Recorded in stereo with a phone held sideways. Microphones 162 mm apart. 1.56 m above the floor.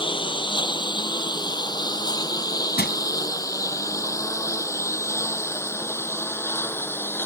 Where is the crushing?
85° left.